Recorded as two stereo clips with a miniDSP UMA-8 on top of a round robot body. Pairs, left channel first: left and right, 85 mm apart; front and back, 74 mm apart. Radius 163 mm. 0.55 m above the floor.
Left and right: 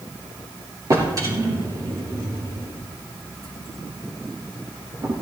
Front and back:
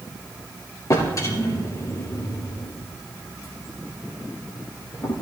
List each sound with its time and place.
0.9 s a drawer: 45° right, 4 m